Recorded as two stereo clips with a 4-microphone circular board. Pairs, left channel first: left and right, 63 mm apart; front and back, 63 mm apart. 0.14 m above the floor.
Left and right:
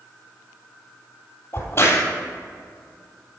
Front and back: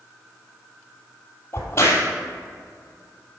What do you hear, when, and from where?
1.5 s a crack: 50° left, 3 m